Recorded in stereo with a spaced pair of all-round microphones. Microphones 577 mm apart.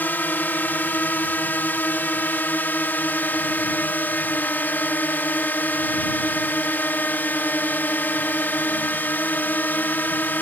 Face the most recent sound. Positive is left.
turn(degrees=5)  # may be behind; listen again after turning